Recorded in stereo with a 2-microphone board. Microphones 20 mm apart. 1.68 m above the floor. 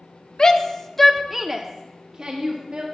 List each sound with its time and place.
0.4 s a shout: 30° left (ahead or behind), 0.7 m; by 2.8 s 50° right (ahead or behind), 1.1 m